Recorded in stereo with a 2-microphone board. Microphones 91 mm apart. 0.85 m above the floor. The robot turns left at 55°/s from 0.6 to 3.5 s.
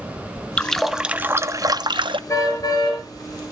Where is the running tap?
15° left, 0.6 m; by 2.2 s 75° right, 0.6 m.